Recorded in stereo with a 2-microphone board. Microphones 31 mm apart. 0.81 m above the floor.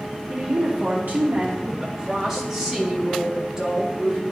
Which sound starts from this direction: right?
A woman speaking, at 0.3 s.